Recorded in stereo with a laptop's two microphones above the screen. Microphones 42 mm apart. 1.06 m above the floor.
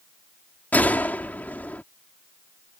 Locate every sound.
0.7 s a gunshot: 40° left (ahead or behind)